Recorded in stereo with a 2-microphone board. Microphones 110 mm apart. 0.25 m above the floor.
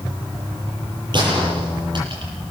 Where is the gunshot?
50° right (ahead or behind), 8.5 m.